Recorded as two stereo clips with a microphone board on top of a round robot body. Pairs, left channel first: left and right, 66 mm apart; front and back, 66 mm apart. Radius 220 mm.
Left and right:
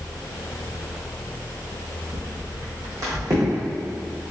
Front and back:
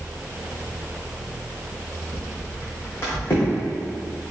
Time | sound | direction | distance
2.1 | footsteps | 40° right | 1.0 m